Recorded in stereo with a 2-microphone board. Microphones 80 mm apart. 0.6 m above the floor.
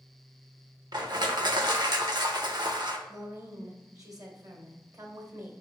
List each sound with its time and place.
0.9 s crushing: 65° right (ahead or behind), 0.8 m
3.1 s a woman speaking: 45° right (ahead or behind), 2.0 m